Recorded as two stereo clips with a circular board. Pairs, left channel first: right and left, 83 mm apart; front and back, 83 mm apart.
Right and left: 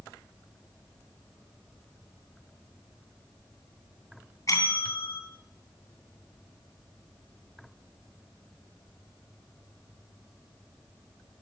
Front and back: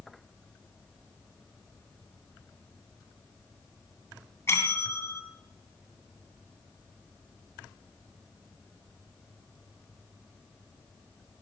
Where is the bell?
50° right, 2.5 m.